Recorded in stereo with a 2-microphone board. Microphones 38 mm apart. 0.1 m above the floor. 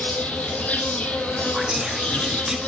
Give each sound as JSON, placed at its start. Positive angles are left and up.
{"t": 0.0, "sound": "an insect", "side_deg": 40, "distance_m": 1.8}
{"t": 1.5, "sound": "whispering", "side_deg": -15, "distance_m": 1.3}